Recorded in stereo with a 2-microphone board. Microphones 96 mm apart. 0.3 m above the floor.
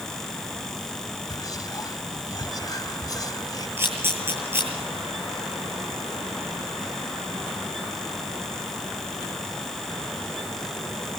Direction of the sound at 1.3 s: 40° left (ahead or behind).